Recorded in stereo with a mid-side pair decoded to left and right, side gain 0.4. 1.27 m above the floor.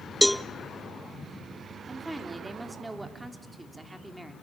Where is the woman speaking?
20° right, 3 m.